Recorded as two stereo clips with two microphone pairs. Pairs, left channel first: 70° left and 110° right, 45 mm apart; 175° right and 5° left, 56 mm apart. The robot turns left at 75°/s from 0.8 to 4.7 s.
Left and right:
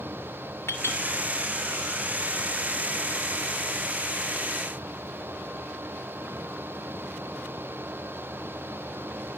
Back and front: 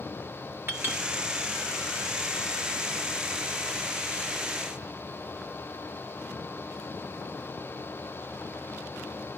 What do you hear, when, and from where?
0.7 s a clink: 50° left, 3 m; by 1.0 s 35° left, 3 m